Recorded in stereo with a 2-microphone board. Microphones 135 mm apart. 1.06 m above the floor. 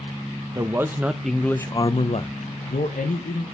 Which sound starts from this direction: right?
A man speaking, at 0.6 s.